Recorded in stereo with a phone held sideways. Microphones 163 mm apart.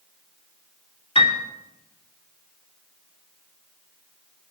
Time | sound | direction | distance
1.1 | a piano | 35° left (ahead or behind) | 2.5 m